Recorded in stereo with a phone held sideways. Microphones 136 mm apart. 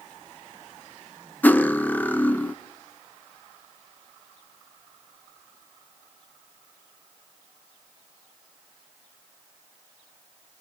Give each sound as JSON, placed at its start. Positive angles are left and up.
{"t": 1.4, "sound": "cutlery clinking", "side_deg": 15, "distance_m": 0.6}